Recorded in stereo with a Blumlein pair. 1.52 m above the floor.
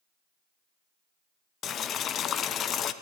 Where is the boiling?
25° left, 0.6 m.